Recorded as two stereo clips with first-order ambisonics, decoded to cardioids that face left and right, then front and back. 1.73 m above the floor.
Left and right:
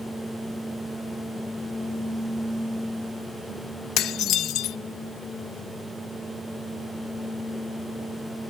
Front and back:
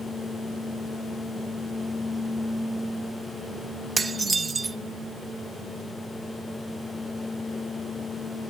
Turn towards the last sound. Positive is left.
turn(degrees=110)